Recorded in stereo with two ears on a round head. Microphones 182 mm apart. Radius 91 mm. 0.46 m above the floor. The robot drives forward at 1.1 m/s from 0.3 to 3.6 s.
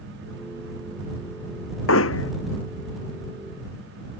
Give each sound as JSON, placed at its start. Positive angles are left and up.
{"t": 1.9, "sound": "hammering", "side_deg": 75}